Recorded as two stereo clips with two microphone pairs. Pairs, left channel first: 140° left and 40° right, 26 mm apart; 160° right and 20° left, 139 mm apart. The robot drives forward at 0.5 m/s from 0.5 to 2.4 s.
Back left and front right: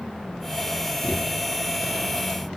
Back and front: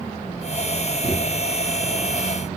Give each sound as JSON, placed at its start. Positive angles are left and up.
{"t": 1.0, "sound": "a thud", "azimuth_deg": 100, "distance_m": 7.5}